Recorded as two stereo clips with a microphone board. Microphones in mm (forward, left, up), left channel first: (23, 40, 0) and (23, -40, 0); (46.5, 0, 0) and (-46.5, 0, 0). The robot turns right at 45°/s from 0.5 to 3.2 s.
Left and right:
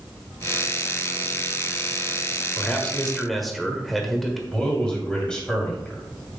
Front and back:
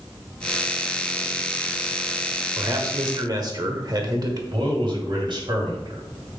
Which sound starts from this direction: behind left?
A man speaking, at 2.6 s.